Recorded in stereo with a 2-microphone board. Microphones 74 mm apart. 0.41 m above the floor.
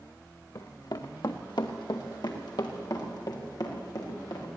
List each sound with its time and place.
0.6 s running footsteps: 55° left (ahead or behind), 1.9 m; by 4.5 s 60° left (ahead or behind), 6.5 m